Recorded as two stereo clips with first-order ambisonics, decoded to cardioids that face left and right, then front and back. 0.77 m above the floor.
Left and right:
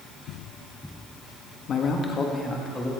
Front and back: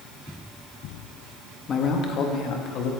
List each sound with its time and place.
1.7 s a man speaking: 45° left, 1.2 m; by 2.9 s straight ahead, 1.6 m